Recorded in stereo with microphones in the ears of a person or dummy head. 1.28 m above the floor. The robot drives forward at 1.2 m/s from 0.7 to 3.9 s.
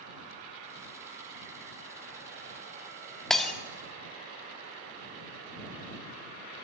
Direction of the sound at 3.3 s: 5° left (ahead or behind).